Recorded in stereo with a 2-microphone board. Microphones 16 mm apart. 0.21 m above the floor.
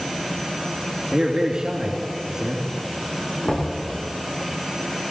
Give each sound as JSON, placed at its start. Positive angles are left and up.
{"t": 1.1, "sound": "a man speaking", "side_deg": -65, "distance_m": 3.0}
{"t": 3.5, "sound": "knocking", "side_deg": 80, "distance_m": 10.0}